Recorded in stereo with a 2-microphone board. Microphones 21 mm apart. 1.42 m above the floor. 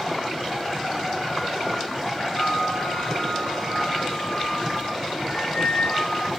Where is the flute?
70° left (ahead or behind), 1.5 m.